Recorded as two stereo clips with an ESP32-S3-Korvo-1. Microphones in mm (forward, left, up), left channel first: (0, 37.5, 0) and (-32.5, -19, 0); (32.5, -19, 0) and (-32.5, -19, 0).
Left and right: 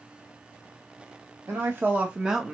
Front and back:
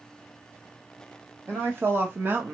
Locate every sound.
1.5 s a woman speaking: 140° right, 1.0 m; by 2.5 s 150° left, 0.8 m